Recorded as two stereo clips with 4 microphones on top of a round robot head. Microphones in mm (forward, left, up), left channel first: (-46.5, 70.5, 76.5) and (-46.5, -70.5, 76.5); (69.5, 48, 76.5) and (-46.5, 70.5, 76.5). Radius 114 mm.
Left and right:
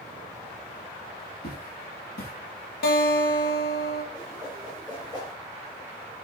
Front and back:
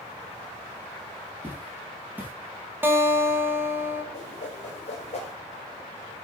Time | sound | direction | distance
1.4 | footsteps | 95° left | 2.5 m
2.8 | a guitar | 95° left | 1.4 m
4.1 | a whoosh | 20° left | 3 m